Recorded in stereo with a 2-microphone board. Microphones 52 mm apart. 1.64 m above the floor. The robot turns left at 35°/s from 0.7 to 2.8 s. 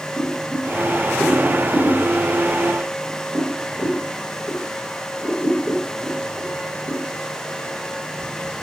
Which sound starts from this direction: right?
Boiling, at 0.2 s.